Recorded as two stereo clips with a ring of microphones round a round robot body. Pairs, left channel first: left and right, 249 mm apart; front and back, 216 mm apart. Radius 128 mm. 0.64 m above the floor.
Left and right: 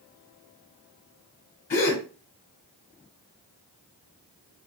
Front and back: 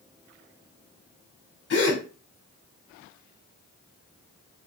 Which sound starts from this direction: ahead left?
A gasp, at 1.7 s.